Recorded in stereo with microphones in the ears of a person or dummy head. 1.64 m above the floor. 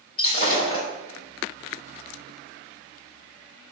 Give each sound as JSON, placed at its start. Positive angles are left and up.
{"t": 0.2, "sound": "breaking glass", "side_deg": 25, "distance_m": 4.0}